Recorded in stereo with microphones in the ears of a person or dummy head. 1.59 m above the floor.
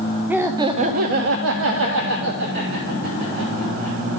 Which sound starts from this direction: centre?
Laughter, at 0.3 s.